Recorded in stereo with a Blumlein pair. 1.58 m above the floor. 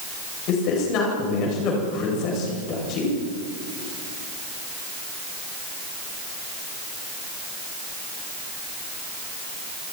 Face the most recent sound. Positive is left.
turn(degrees=40)